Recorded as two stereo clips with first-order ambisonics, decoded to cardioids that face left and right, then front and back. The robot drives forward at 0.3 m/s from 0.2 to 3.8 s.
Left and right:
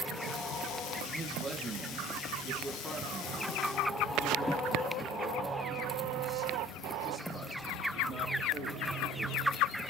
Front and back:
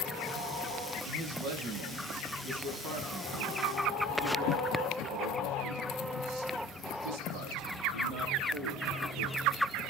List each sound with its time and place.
1.0 s a man speaking: 175° right, 4 m